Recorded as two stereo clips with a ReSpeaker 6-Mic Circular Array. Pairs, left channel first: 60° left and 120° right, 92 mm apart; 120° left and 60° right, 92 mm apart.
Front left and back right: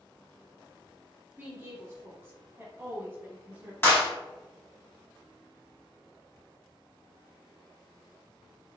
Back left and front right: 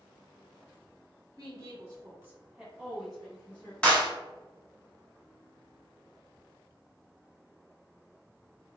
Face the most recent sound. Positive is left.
turn(degrees=60)